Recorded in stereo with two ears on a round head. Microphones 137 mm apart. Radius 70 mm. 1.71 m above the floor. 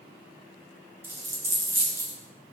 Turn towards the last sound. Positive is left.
turn(degrees=-15)  # may be behind; listen again after turning